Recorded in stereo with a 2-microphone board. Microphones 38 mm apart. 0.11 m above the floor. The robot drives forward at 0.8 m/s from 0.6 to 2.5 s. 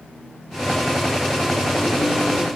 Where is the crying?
I don't hear crying.